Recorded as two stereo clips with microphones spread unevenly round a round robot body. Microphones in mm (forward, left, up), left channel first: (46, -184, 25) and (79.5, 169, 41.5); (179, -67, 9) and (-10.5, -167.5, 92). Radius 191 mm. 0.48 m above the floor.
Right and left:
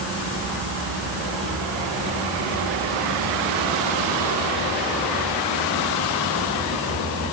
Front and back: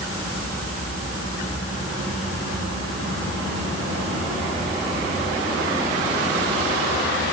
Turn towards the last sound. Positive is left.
No sound to turn to.